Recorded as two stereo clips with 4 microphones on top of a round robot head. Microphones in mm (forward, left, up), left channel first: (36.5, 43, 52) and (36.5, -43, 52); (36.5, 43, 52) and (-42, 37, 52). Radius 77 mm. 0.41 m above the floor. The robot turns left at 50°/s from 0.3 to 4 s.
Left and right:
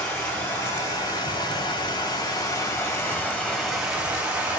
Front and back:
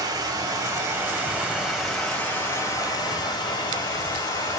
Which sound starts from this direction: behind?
Running water, at 0.0 s.